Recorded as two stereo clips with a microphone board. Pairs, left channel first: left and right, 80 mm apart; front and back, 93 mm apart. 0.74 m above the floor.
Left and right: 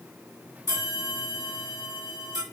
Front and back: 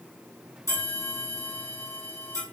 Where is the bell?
50° right, 2.5 m.